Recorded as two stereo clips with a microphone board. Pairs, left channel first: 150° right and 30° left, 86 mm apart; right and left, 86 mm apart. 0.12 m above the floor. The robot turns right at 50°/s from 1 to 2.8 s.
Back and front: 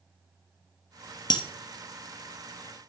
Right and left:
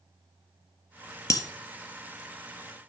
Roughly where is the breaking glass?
Behind right.